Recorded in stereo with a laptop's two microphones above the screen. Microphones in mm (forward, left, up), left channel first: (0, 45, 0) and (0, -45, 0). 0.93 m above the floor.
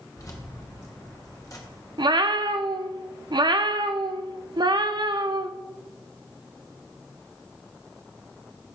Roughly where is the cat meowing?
Right.